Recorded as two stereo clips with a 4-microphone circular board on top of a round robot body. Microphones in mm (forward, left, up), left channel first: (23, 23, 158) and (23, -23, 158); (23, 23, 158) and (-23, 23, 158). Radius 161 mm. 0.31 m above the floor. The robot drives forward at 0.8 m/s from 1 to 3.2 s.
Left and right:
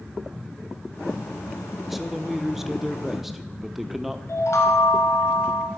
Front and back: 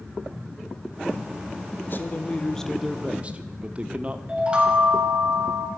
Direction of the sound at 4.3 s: 115° left.